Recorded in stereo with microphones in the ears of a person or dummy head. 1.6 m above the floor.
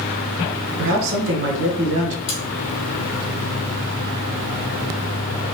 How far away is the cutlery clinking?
About 1.2 m.